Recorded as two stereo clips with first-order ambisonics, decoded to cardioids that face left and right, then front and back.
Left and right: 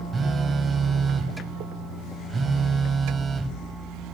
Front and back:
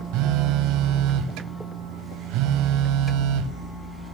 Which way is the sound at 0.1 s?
160° right.